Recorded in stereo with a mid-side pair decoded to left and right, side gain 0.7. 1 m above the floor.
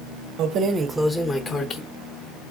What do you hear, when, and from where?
0.4 s keys jangling: 55° right, 0.6 m; by 1.8 s 35° left, 0.8 m